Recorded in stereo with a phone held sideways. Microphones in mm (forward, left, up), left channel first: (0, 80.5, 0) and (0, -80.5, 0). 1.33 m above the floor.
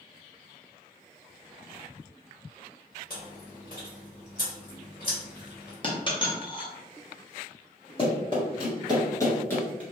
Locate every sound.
3.1 s chewing: 60° left (ahead or behind), 1.8 m
5.8 s a dropped coin: 30° left (ahead or behind), 0.8 m
8.0 s running footsteps: 35° left (ahead or behind), 1.6 m; by 9.8 s 10° left (ahead or behind), 1.4 m